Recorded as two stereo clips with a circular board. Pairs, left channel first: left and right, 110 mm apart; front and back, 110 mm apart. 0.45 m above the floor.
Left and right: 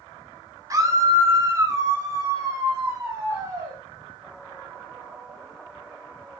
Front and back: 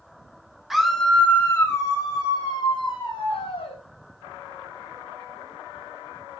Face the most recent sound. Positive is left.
turn(degrees=-25)